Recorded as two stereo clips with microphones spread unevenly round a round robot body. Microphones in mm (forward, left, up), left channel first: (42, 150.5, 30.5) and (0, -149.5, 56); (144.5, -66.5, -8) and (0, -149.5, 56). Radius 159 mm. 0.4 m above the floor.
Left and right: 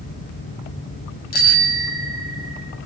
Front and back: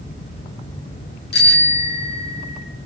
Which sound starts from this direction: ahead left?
A bicycle bell, at 1.3 s.